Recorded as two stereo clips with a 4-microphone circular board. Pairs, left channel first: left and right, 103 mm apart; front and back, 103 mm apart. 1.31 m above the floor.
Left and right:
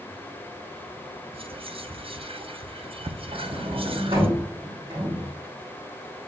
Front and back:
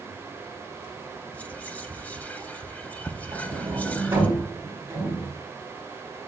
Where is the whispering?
75° right, 0.6 m.